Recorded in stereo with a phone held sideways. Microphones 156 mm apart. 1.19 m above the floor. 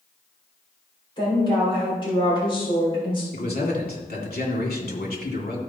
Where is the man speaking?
80° left, 2.5 m.